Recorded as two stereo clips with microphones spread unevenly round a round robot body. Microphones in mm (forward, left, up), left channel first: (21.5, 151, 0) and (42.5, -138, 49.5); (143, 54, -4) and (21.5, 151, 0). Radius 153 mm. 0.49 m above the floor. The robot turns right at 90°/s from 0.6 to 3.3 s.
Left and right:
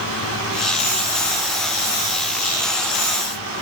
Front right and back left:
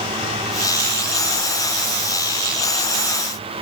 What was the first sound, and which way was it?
Only background noise.